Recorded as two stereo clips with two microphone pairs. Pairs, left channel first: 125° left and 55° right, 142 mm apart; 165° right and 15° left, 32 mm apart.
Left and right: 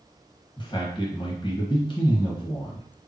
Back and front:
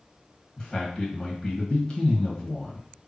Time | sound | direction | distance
0.6 | a man speaking | 140° left | 1.6 m